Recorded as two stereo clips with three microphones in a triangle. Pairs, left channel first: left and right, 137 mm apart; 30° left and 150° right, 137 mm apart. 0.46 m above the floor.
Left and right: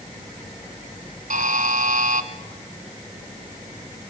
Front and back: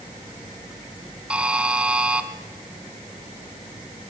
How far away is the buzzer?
About 1.4 m.